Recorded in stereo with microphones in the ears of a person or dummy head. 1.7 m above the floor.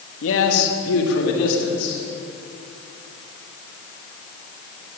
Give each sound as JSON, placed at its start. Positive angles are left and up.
{"t": 0.2, "sound": "a man speaking", "side_deg": 80, "distance_m": 3.0}